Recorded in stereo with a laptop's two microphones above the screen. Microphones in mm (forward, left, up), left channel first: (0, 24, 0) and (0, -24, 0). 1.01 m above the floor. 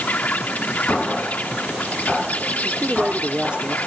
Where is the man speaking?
25° right (ahead or behind).